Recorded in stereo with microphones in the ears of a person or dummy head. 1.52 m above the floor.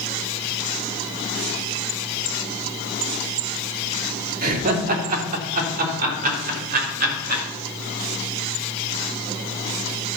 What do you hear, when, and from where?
4.4 s laughter: 50° right (ahead or behind), 2.5 m; by 7.4 s 55° right (ahead or behind), 6 m